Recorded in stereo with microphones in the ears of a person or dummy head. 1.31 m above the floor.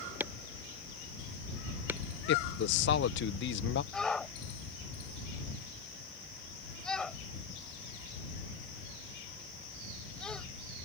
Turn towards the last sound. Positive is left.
turn(degrees=5)  # may be behind; listen again after turning